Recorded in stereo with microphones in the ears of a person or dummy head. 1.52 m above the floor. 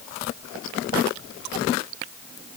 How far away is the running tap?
No running tap in this recording.